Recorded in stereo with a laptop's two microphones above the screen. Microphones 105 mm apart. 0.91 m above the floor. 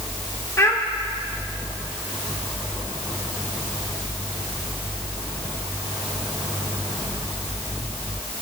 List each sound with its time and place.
0.6 s a child speaking: 25° left (ahead or behind), 0.7 m